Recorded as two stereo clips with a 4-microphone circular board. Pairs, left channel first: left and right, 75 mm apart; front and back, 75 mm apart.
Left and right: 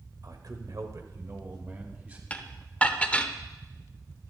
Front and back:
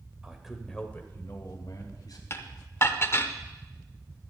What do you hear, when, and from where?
0.2 s a man speaking: 105° right, 1.5 m; by 2.2 s 25° right, 2.5 m
2.3 s dishes clattering: 30° left, 0.7 m